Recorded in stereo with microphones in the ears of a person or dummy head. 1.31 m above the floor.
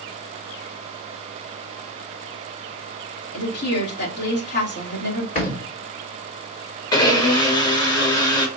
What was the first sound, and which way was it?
A woman speaking, 55° left (ahead or behind).